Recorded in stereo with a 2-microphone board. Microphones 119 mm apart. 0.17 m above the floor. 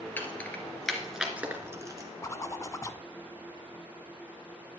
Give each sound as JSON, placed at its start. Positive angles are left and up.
{"t": 0.2, "sound": "keys jangling", "side_deg": 20, "distance_m": 2.0}
{"t": 2.2, "sound": "a zipper", "side_deg": 30, "distance_m": 0.6}